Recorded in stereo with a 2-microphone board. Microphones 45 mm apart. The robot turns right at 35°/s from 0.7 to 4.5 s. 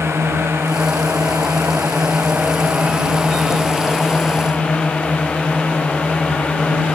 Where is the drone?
115° right; by 7.0 s 20° left.